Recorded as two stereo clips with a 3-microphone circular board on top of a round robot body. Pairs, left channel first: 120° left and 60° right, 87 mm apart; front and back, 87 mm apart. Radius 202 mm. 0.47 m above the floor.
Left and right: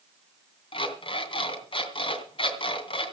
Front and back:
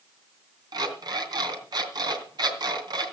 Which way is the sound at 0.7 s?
140° left.